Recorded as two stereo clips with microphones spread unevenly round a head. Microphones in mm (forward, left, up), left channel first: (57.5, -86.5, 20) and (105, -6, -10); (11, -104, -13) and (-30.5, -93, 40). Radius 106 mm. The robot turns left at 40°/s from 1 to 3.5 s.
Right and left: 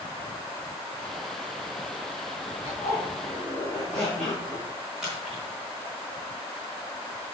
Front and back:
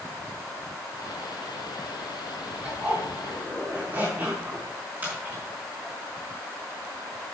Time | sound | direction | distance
2.6 | a zipper | 165° right | 4.5 m
5.0 | a splash | 150° left | 4.5 m